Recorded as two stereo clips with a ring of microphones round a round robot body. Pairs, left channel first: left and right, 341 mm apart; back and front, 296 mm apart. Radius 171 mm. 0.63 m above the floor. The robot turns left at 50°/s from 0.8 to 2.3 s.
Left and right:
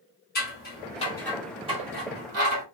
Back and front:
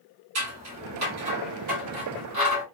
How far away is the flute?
No flute in this recording.